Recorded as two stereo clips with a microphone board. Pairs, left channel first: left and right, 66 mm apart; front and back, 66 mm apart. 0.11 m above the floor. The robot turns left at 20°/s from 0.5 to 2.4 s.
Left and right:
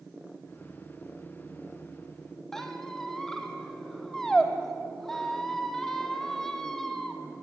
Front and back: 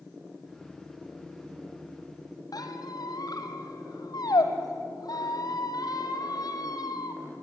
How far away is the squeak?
About 2 m.